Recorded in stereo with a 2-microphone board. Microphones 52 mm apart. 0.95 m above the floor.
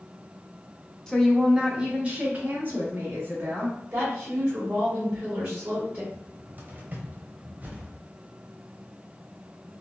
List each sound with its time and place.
1.1 s a woman speaking: 10° left (ahead or behind), 0.6 m; by 3.8 s 45° right (ahead or behind), 1.8 m
3.9 s a woman speaking: 35° right (ahead or behind), 2.0 m
6.1 s a cupboard door: 35° right (ahead or behind), 0.7 m